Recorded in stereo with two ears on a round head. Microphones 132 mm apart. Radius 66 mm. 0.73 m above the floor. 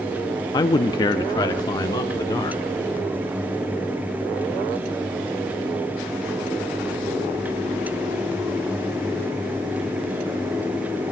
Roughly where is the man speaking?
Left.